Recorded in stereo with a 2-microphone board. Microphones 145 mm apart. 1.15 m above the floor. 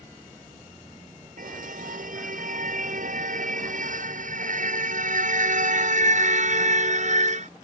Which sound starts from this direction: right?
A car horn, at 1.4 s.